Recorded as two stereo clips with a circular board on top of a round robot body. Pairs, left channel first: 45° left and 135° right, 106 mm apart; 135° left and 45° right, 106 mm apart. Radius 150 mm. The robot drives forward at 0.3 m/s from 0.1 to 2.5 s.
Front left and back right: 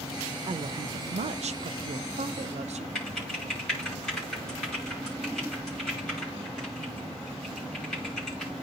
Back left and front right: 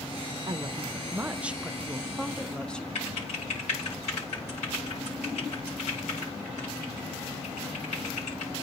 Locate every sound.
0.5 s a woman speaking: 95° right, 0.5 m; by 2.9 s 145° right, 0.8 m
3.0 s typing on a keyboard: 130° left, 9 m